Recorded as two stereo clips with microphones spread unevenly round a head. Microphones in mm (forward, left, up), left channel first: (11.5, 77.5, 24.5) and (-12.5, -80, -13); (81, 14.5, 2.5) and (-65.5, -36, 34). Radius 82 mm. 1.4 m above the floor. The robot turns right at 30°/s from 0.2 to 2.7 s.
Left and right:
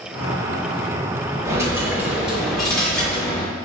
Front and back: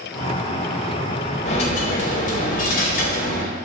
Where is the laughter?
No laughter in this recording.